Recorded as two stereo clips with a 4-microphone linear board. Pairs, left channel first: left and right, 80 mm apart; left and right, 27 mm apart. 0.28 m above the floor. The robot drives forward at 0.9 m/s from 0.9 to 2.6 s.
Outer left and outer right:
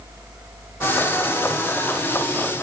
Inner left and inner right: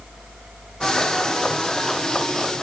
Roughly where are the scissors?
No scissors in this recording.